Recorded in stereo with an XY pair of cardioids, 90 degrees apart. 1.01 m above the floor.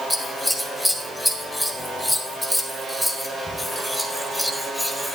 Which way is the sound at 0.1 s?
5° left.